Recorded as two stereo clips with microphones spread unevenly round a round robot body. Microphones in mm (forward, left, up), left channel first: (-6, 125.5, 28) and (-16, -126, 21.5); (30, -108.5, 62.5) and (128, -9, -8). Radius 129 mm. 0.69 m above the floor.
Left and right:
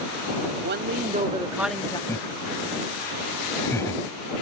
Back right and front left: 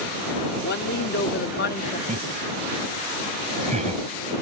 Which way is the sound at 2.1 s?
10° left.